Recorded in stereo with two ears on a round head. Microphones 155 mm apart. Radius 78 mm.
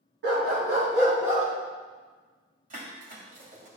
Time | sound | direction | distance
0.2 | a dog barking | 70° right (ahead or behind) | 3.5 m
2.7 | dishes clattering | 50° right (ahead or behind) | 2 m